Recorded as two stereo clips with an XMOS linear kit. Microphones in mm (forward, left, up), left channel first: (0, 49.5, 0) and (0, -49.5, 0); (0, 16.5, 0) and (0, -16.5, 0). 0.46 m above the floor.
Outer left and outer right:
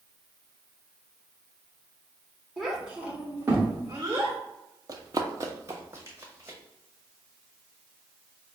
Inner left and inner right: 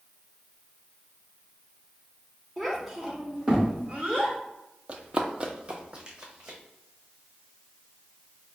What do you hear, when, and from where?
2.6 s a child speaking: centre (ahead or behind), 1.0 m; by 4.4 s 40° right (ahead or behind), 1.1 m
4.9 s running footsteps: 40° right (ahead or behind), 0.5 m; by 6.6 s 20° right (ahead or behind), 1.1 m